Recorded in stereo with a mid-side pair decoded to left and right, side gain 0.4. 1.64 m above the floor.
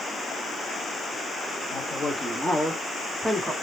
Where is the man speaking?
15° left, 3.5 m; by 3.5 s 15° right, 3 m.